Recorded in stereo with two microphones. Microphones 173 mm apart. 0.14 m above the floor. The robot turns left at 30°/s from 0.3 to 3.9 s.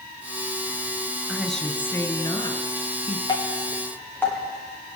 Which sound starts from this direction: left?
Dripping, at 3.3 s.